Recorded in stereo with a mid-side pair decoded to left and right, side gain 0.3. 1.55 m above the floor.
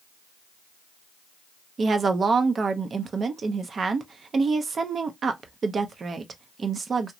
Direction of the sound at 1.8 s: 60° right.